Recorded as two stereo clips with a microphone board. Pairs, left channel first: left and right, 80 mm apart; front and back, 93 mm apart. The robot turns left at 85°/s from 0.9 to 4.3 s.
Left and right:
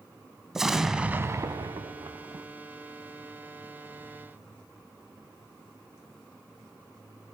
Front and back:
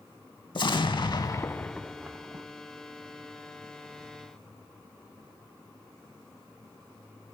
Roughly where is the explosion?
Ahead.